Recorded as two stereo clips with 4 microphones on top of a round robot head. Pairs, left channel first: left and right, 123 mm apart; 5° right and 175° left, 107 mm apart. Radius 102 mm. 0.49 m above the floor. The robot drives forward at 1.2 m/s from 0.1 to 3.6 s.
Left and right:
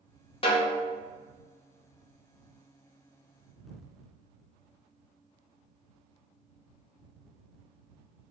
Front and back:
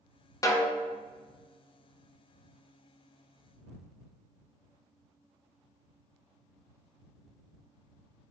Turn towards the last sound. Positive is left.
turn(degrees=170)